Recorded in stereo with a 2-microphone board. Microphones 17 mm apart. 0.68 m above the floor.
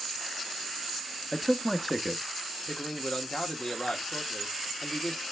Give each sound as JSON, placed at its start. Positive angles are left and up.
{"t": 1.3, "sound": "a man speaking", "side_deg": 5, "distance_m": 0.9}
{"t": 2.7, "sound": "a man speaking", "side_deg": 60, "distance_m": 1.8}